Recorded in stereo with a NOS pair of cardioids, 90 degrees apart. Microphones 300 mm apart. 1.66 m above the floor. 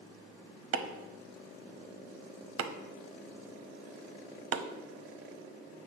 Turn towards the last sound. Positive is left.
turn(degrees=-55)